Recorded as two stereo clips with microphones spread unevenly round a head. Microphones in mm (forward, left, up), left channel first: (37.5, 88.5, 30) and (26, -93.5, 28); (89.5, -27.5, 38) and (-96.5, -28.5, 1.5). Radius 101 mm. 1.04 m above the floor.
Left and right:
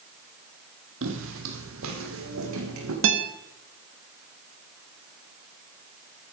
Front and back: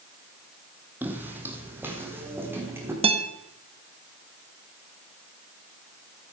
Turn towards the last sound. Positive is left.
turn(degrees=-120)